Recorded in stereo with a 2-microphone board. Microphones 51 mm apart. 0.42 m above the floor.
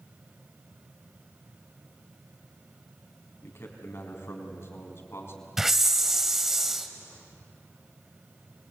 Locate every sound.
3.4 s a man speaking: 55° left (ahead or behind), 4 m
5.6 s a hiss: 10° right (ahead or behind), 1.1 m